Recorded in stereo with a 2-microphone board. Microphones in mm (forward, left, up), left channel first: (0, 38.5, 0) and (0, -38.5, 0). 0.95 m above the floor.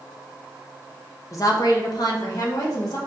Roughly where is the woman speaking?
Left.